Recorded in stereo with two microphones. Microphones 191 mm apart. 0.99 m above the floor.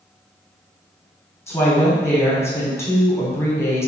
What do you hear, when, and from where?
1.5 s a woman speaking: 15° left (ahead or behind), 0.9 m